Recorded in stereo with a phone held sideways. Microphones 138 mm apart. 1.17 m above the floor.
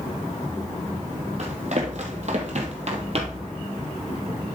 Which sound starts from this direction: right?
Running footsteps, at 1.4 s.